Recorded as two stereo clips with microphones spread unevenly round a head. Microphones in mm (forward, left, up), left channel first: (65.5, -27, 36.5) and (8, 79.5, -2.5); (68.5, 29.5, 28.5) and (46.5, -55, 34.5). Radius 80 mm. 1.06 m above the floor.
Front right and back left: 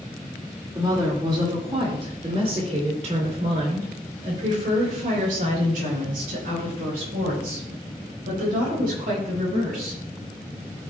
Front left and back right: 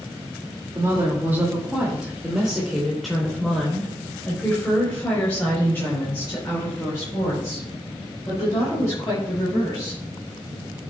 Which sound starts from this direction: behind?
A woman speaking, at 0.8 s.